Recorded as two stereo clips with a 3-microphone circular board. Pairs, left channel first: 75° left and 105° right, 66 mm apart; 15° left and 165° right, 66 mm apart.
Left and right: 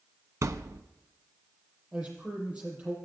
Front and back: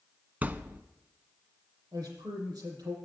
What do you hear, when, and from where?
0.4 s a thud: 110° right, 0.6 m
1.9 s a man speaking: 175° right, 7.5 m